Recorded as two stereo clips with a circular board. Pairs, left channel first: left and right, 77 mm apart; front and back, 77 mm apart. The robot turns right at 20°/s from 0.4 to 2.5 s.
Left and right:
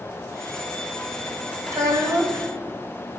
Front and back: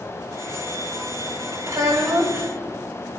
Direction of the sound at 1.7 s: 135° right.